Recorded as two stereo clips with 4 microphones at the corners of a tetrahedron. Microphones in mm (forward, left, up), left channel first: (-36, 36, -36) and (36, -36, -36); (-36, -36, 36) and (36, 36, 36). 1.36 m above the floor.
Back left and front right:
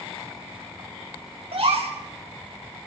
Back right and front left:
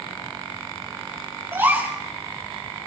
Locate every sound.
1.5 s a gasp: 25° right, 5 m